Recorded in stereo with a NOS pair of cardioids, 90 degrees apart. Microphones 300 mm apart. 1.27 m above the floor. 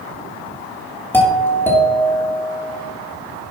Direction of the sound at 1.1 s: 10° left.